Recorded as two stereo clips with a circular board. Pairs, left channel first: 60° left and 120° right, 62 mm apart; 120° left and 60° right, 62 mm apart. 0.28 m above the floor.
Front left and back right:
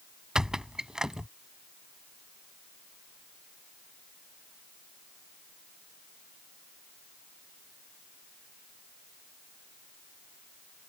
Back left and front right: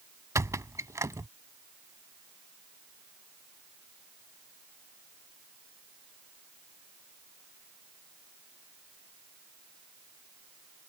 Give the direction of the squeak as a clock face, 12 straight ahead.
1 o'clock.